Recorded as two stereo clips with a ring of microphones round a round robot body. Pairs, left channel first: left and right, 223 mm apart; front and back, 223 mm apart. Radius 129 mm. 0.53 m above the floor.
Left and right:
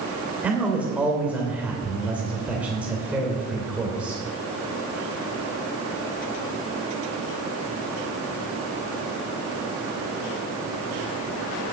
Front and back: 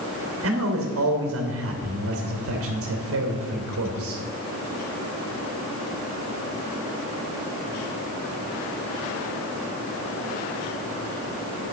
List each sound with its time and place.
0.4 s a man speaking: 175° right, 3 m